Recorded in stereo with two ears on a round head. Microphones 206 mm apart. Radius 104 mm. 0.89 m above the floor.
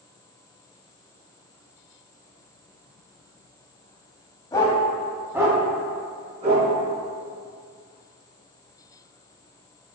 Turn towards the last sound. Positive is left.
turn(degrees=-35)  # may be behind; listen again after turning